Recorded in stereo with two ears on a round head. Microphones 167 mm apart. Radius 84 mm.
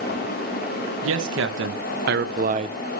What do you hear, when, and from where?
1.0 s a man speaking: 80° right, 2.5 m; by 3.0 s 20° right (ahead or behind), 1.2 m